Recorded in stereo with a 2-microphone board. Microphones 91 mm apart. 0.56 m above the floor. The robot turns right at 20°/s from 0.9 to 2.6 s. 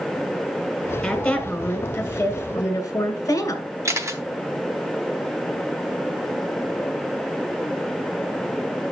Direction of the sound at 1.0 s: 5° left.